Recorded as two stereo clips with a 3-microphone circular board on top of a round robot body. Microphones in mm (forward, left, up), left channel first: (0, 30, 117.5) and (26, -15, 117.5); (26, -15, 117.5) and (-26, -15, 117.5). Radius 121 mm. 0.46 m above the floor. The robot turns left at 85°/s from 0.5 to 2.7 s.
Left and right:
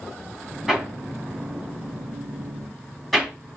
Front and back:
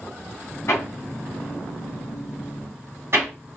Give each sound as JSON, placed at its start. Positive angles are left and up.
{"t": 0.7, "sound": "hammering", "azimuth_deg": 20, "distance_m": 1.7}